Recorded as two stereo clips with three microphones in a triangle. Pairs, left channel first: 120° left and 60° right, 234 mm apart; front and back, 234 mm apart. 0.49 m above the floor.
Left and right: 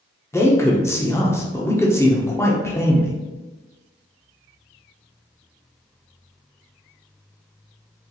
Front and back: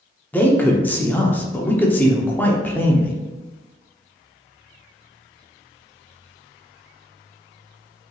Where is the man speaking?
70° left, 0.7 m.